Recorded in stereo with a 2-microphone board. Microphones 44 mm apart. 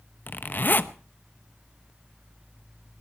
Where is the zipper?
45° left (ahead or behind), 0.8 m.